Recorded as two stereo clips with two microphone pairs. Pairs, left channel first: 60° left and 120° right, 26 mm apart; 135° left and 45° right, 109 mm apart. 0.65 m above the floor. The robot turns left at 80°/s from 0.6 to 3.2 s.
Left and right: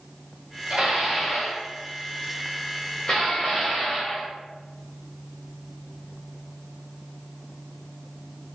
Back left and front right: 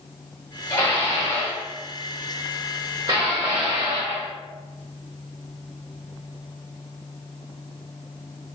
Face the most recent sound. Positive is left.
turn(degrees=-5)